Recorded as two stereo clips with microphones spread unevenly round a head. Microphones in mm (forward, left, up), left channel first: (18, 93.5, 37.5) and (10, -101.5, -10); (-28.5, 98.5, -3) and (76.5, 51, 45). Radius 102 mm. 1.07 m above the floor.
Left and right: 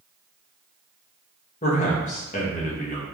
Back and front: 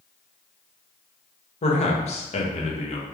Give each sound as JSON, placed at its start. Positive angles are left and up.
{"t": 1.6, "sound": "a man speaking", "azimuth_deg": 145, "distance_m": 1.0}